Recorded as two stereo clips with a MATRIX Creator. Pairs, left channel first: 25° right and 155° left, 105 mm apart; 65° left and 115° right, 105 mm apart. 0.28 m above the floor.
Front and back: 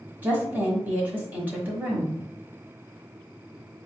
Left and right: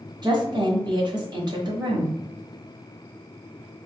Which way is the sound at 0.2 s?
135° right.